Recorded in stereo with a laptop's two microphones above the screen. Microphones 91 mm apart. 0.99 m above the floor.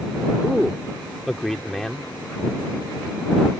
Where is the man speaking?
5° left (ahead or behind).